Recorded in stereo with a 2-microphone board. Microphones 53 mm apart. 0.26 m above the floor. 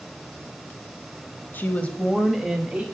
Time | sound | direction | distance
1.5 | a woman speaking | 35° left (ahead or behind) | 1.2 m